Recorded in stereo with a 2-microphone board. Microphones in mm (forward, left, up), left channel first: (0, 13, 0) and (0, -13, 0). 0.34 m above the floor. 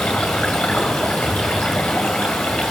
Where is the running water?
75° left (ahead or behind), 2.5 m.